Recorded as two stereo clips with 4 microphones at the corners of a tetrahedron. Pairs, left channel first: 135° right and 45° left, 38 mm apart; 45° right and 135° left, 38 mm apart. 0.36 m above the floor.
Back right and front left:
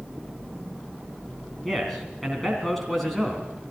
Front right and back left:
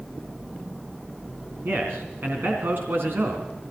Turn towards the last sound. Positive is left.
turn(degrees=140)